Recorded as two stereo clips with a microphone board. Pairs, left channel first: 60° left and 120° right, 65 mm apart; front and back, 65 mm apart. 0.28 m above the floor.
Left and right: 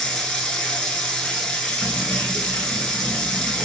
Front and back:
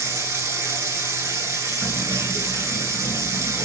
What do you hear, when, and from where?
0.0 s running water: 140° left, 1.0 m
1.8 s keys jangling: 135° left, 2.5 m